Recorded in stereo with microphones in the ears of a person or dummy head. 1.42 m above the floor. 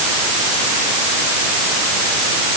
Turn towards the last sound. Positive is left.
No sound to turn to.